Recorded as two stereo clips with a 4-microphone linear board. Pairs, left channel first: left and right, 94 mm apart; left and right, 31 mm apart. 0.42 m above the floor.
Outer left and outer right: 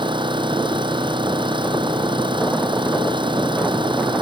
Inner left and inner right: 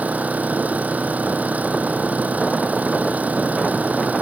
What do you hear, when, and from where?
0.0 s an engine running: 65° right (ahead or behind)